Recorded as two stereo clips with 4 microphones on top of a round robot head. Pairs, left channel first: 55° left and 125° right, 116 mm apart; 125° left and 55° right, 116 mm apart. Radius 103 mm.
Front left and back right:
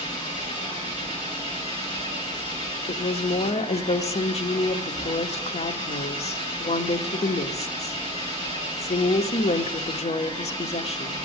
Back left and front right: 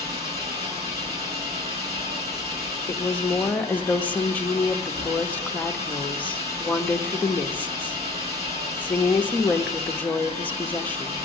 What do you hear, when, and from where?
0.0 s an engine running: 5° left, 8 m
2.9 s a woman speaking: 50° left, 0.9 m